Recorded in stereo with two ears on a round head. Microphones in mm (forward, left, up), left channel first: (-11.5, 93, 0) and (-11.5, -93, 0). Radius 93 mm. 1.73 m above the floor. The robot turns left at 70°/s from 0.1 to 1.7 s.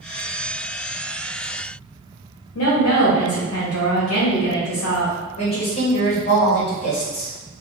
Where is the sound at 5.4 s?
30° left (ahead or behind), 1.7 m.